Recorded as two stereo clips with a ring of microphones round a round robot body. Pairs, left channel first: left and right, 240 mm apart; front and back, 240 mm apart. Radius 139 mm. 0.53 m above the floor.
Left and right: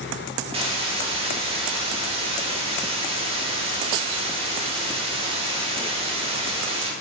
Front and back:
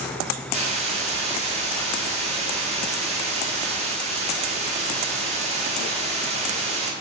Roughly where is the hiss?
Behind right.